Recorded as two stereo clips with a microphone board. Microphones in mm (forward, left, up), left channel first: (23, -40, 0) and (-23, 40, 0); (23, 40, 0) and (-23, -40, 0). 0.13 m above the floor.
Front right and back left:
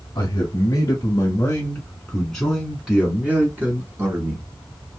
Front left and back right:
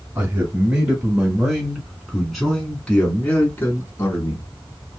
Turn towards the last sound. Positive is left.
turn(degrees=95)